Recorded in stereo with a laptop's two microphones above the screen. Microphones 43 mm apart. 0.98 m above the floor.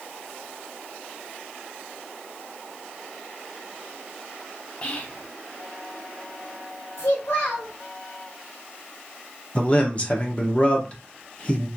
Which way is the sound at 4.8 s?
35° left (ahead or behind).